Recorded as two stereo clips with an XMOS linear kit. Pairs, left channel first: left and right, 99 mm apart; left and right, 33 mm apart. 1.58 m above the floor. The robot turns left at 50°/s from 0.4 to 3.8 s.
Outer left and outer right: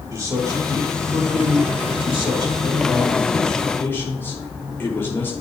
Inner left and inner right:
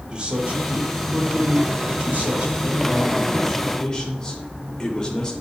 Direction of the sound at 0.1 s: 30° right.